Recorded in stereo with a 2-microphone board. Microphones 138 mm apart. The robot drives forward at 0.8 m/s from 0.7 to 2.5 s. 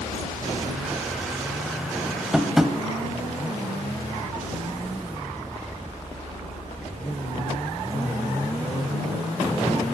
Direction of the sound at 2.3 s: 5° right (ahead or behind).